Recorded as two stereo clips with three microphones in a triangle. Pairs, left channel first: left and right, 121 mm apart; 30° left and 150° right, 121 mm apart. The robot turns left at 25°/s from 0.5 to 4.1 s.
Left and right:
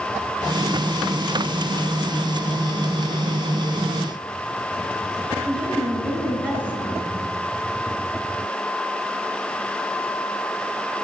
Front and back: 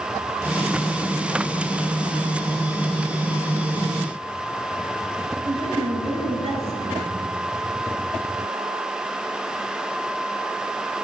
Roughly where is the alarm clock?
No alarm clock in this recording.